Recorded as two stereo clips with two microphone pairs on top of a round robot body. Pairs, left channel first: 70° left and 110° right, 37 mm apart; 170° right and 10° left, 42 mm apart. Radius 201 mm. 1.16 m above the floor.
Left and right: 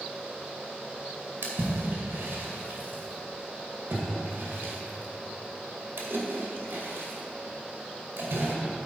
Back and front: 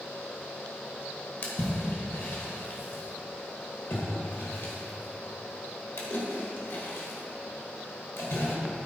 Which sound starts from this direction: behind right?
A splash, at 1.4 s.